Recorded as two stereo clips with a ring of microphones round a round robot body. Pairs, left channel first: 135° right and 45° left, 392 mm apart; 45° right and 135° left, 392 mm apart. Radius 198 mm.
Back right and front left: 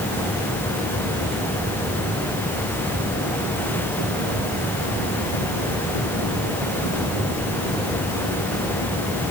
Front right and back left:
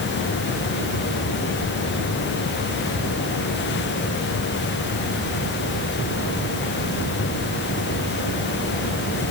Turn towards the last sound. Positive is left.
No sound to turn to.